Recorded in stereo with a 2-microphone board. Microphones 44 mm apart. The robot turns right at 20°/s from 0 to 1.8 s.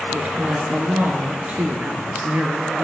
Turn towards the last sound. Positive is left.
turn(degrees=-70)